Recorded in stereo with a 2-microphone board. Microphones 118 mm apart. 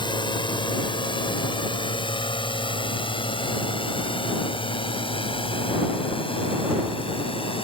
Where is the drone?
45° left (ahead or behind); by 7.6 s 50° left (ahead or behind).